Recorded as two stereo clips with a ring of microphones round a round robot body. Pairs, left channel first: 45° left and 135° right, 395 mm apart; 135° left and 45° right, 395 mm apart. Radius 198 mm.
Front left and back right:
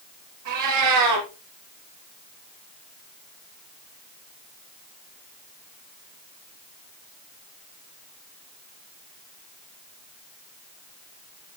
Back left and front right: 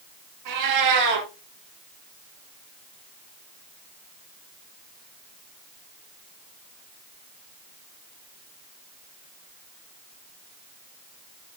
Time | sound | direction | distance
0.5 | a cat meowing | 90° right | 3.5 m